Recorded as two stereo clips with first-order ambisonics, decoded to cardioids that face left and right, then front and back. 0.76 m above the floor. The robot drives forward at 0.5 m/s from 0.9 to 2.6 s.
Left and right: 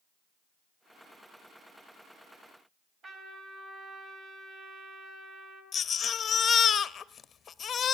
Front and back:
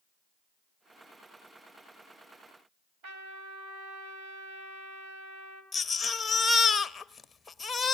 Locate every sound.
3.0 s a trumpet: 155° right, 4.5 m
5.7 s a baby crying: 65° left, 0.5 m